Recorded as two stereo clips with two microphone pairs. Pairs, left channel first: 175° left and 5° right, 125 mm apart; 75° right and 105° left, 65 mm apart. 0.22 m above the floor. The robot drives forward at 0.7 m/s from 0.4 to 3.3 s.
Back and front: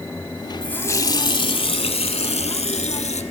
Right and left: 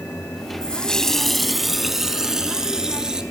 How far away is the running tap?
About 0.6 m.